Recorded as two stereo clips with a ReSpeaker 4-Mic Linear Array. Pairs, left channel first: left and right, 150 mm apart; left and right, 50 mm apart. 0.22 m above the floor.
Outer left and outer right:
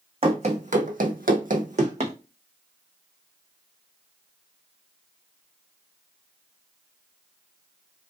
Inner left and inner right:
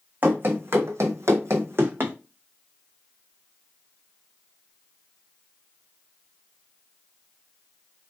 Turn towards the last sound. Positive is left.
turn(degrees=-45)  # may be behind; listen again after turning